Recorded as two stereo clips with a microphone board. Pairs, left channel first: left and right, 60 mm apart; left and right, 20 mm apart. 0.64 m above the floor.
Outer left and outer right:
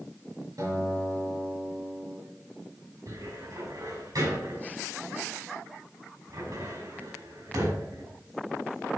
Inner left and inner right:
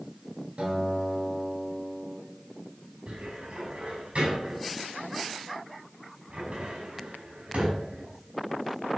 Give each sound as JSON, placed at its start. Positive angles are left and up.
{"t": 0.6, "sound": "a guitar", "side_deg": -80, "distance_m": 6.0}
{"t": 3.1, "sound": "a cupboard door", "side_deg": -80, "distance_m": 5.5}